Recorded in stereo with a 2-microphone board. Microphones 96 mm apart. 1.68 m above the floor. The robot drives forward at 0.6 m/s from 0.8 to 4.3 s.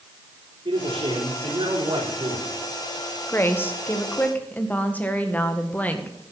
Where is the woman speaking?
25° left (ahead or behind), 1.1 m; by 6.3 s 15° left (ahead or behind), 1.7 m.